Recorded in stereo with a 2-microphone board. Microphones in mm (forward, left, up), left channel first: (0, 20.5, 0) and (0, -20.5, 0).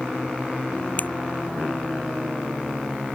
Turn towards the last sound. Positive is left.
turn(degrees=45)  # may be behind; listen again after turning